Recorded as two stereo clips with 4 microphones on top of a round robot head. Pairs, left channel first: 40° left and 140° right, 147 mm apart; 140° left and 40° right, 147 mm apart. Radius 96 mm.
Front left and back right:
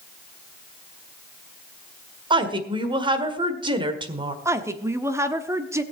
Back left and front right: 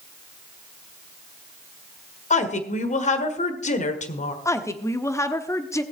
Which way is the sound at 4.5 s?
Straight behind.